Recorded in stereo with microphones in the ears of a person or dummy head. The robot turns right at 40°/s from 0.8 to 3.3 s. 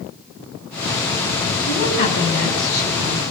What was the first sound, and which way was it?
A woman speaking, 35° left.